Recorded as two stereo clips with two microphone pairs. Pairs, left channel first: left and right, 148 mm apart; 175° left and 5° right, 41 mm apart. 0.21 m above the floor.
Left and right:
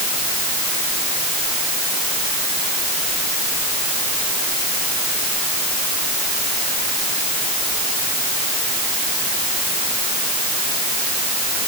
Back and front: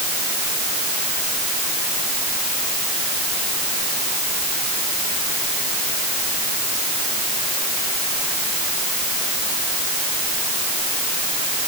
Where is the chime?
No chime in this recording.